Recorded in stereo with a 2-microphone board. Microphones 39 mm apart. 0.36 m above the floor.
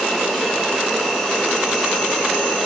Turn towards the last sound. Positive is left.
turn(degrees=5)  # may be behind; listen again after turning